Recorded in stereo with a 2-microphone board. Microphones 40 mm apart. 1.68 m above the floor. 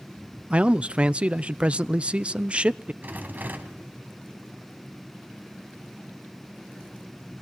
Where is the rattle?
45° right (ahead or behind), 2 m.